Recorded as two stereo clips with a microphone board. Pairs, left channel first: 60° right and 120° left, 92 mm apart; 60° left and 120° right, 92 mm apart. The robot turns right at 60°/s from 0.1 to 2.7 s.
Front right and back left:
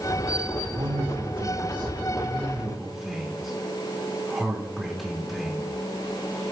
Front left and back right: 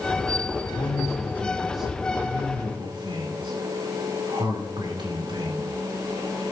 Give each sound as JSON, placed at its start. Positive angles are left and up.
{"t": 0.7, "sound": "a man speaking", "azimuth_deg": 90, "distance_m": 3.5}